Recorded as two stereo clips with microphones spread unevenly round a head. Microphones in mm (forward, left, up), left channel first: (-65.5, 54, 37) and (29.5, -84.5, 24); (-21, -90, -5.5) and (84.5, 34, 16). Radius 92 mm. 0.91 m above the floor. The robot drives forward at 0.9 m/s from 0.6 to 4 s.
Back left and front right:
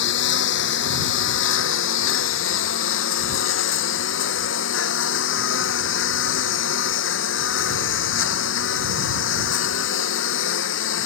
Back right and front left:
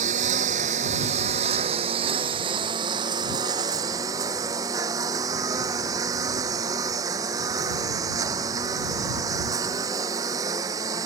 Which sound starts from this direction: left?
A lawn mower, at 0.0 s.